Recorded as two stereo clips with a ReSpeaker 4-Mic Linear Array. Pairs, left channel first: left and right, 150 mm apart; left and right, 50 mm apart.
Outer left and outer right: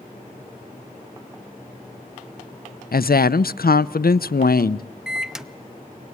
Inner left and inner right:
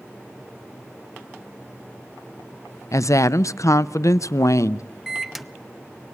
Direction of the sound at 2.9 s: 85° left.